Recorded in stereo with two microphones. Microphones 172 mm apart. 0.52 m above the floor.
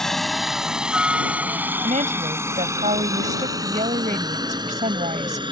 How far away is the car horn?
No car horn in this recording.